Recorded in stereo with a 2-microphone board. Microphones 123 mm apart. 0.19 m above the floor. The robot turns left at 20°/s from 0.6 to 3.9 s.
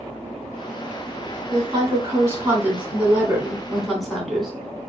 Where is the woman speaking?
130° right, 1.7 m; by 4.5 s straight behind, 1.7 m.